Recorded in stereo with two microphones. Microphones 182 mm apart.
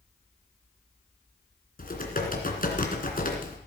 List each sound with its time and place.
1.8 s typing on a keyboard: 50° left (ahead or behind), 2.5 m